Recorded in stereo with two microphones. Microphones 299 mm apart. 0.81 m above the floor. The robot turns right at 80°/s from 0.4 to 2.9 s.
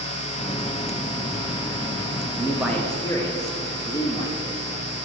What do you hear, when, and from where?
2.4 s a man speaking: 25° right, 1.0 m; by 4.6 s 20° left, 1.0 m